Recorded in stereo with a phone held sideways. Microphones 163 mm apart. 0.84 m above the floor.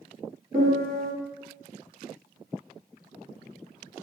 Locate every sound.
0.5 s a piano: 60° right (ahead or behind), 1.8 m